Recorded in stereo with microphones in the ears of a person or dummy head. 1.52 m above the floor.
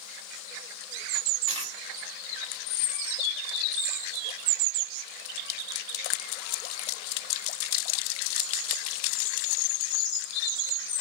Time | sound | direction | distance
1.5 | a dropped coin | 35° right (ahead or behind) | 1.5 m